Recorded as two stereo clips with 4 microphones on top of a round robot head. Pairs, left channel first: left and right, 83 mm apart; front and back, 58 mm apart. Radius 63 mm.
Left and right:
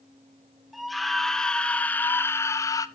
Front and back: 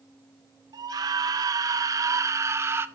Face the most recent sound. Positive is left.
turn(degrees=135)